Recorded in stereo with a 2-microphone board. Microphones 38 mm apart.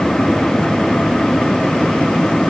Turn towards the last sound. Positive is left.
No sound to turn to.